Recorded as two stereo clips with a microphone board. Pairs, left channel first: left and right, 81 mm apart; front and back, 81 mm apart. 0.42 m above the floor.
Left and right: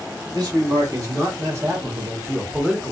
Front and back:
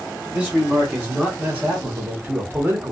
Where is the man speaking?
110° right, 1.7 m; by 2.9 s 175° right, 0.9 m.